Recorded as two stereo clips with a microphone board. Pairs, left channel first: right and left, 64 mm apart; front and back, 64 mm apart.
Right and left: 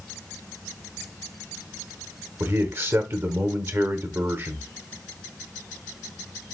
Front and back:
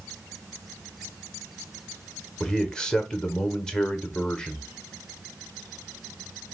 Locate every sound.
2.4 s a man speaking: 70° left, 1.0 m